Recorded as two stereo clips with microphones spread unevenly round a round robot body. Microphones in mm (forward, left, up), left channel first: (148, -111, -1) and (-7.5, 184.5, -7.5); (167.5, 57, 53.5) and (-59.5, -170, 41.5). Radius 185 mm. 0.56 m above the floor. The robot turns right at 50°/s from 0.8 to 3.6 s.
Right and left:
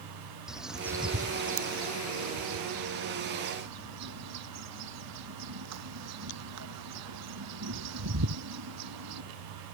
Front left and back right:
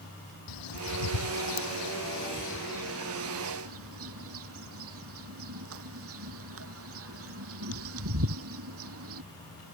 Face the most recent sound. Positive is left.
turn(degrees=170)